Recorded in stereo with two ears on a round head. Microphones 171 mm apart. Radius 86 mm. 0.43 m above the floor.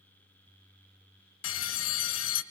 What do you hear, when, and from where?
1.4 s a bell: 75° left (ahead or behind), 1.2 m